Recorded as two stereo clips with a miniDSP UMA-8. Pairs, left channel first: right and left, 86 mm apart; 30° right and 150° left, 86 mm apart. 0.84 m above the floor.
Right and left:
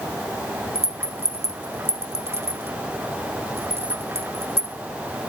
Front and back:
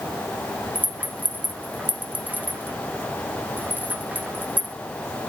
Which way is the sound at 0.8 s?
95° left.